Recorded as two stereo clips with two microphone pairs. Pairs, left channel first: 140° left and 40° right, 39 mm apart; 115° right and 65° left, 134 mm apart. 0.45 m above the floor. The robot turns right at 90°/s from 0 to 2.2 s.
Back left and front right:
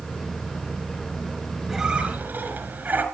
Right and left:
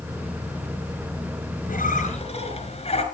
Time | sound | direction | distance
1.7 | a squeak | 120° right | 4 m